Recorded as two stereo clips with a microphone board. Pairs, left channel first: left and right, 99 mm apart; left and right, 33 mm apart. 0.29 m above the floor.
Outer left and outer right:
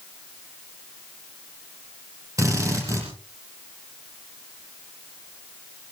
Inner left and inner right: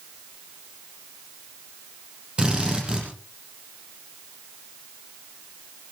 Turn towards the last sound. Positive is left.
turn(degrees=-30)  # may be behind; listen again after turning